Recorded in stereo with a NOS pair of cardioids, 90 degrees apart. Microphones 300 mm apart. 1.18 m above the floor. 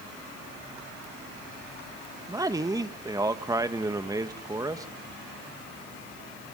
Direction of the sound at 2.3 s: 15° right.